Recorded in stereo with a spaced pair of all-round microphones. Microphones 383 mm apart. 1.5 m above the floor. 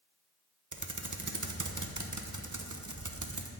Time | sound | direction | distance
0.7 | typing on a keyboard | 50° right (ahead or behind) | 0.8 m